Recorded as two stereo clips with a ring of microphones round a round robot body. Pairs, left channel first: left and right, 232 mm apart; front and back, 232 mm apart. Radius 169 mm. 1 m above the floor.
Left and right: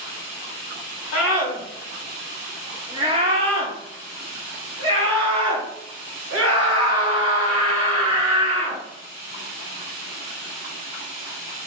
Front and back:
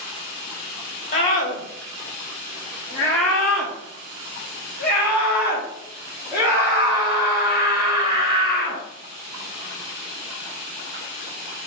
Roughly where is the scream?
Ahead left.